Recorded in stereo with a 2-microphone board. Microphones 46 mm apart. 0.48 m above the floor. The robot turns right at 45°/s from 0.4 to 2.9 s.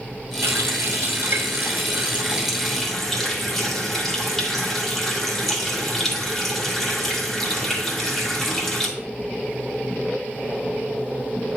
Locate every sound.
0.4 s a running tap: 105° right, 1.6 m; by 8.9 s 5° left, 1.6 m